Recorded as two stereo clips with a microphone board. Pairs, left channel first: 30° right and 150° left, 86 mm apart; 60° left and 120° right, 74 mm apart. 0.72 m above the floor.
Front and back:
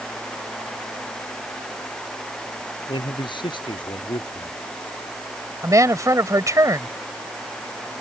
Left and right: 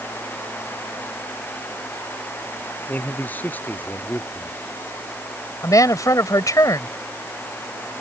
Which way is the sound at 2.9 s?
5° right.